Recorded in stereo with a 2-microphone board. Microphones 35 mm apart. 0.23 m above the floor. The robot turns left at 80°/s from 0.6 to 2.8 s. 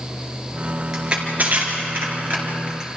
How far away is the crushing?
About 4.5 m.